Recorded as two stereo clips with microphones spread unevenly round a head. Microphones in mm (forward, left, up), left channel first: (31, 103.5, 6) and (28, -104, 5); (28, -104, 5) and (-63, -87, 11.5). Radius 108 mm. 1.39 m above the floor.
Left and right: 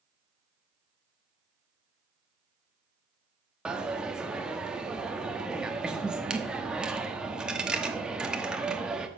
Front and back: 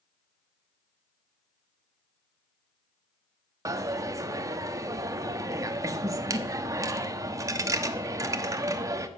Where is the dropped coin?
175° right, 0.9 m.